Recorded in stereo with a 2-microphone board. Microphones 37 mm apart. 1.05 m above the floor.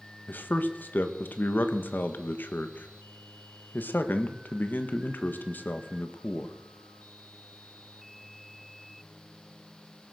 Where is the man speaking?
55° left (ahead or behind), 1.2 m.